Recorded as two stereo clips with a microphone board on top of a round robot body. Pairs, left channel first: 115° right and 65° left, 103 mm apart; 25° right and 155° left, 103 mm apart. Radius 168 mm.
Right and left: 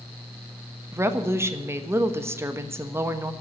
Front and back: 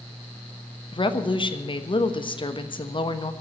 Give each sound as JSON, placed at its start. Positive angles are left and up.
{"t": 0.9, "sound": "a woman speaking", "azimuth_deg": 5, "distance_m": 1.5}